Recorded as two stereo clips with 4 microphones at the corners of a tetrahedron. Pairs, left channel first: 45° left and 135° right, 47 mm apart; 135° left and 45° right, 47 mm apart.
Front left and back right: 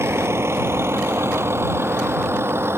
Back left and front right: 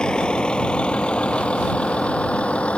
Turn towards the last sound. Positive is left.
turn(degrees=-160)